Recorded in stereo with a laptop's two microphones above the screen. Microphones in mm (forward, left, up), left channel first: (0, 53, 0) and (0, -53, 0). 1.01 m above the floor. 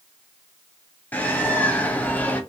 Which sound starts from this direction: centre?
A bird, at 1.1 s.